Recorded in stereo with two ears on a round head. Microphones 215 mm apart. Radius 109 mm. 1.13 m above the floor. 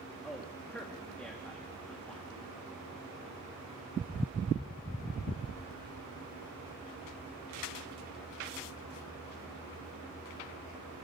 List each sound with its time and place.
0.2 s a man speaking: 5° left (ahead or behind), 1.9 m